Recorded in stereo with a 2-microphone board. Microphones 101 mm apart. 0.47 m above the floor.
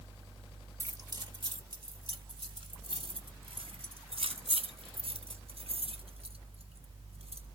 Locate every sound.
0.8 s keys jangling: 30° right (ahead or behind), 0.7 m; by 7.5 s 80° right, 3.5 m